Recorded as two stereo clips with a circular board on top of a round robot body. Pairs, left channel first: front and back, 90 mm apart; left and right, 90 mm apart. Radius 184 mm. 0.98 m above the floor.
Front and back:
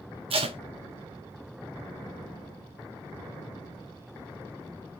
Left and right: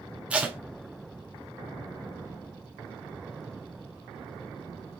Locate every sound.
0.3 s tape being pulled: 165° right, 0.8 m